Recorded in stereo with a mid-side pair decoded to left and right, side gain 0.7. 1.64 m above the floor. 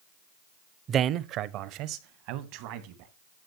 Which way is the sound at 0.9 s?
35° right.